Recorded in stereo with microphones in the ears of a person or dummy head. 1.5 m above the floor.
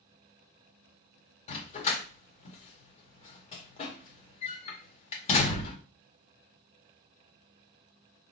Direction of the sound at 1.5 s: 40° left (ahead or behind).